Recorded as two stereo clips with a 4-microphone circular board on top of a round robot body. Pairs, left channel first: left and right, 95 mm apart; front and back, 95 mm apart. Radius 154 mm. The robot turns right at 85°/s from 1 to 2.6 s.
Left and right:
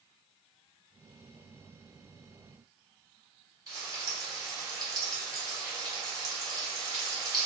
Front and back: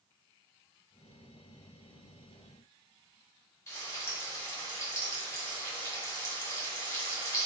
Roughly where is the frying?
Ahead right.